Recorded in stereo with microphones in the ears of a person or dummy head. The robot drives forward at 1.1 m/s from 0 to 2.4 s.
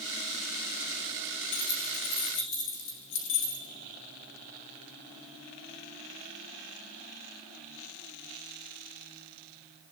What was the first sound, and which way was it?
Keys jangling, 80° left.